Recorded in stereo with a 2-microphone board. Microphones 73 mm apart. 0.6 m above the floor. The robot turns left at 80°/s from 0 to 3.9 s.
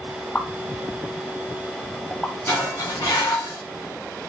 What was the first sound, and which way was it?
A pop, 15° left (ahead or behind).